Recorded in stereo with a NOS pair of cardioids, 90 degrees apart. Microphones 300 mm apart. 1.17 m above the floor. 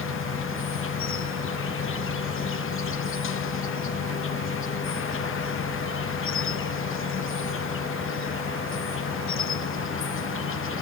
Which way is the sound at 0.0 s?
45° left.